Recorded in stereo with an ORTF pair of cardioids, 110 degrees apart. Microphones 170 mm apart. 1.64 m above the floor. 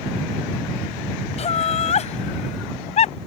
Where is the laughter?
40° left.